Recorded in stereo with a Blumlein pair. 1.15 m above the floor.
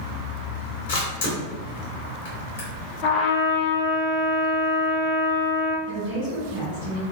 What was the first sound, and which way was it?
A camera shutter, 60° left.